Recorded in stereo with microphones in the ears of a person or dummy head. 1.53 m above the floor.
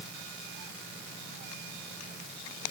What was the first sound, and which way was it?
Only background noise.